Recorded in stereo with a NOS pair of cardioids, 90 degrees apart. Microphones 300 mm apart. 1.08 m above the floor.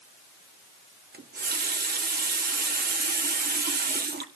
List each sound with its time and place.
1.1 s a running tap: 30° right, 1.6 m